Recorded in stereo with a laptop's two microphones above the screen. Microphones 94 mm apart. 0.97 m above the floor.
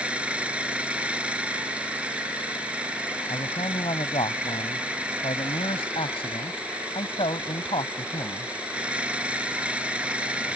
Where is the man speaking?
80° left.